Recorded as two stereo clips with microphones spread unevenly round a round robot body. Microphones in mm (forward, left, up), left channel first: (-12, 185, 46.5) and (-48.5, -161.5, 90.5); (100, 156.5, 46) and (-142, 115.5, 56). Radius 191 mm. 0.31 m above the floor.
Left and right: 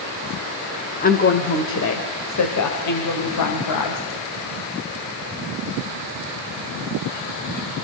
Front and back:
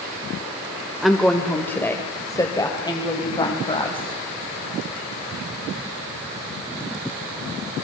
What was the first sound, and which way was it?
A woman speaking, 100° left.